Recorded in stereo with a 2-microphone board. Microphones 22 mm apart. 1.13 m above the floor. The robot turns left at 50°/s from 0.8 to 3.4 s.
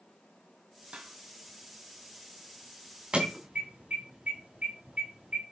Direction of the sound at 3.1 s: 50° right (ahead or behind).